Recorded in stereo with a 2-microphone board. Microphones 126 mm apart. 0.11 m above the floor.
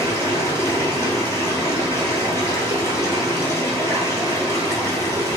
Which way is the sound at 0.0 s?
20° left (ahead or behind).